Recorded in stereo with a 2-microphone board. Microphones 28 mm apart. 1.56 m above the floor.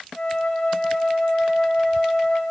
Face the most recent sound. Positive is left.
turn(degrees=25)  # may be behind; listen again after turning